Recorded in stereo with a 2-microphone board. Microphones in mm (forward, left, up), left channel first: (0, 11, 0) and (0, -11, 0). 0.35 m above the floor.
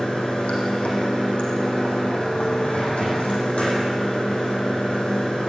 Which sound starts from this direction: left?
Running water, at 0.0 s.